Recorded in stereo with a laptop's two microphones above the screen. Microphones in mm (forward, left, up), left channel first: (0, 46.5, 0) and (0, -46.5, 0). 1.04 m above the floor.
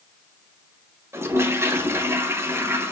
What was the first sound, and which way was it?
A toilet flushing, 30° right (ahead or behind).